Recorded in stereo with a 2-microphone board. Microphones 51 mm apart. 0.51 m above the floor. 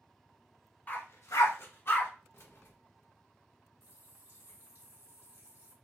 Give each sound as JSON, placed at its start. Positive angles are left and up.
{"t": 0.9, "sound": "a dog barking", "side_deg": 35, "distance_m": 0.8}
{"t": 2.3, "sound": "keys jangling", "side_deg": 50, "distance_m": 0.6}
{"t": 3.8, "sound": "a running tap", "side_deg": -50, "distance_m": 1.4}